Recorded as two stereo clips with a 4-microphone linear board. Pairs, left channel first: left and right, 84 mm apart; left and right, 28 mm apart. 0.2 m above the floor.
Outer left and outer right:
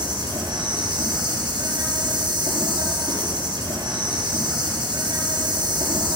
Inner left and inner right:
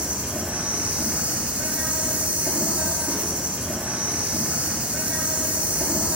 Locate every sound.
0.0 s an insect: 60° right (ahead or behind), 5.5 m